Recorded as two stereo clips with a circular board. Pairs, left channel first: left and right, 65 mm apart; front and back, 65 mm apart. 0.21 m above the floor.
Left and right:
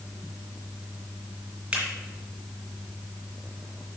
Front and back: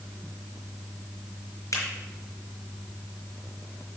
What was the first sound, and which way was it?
A finger snap, 20° right.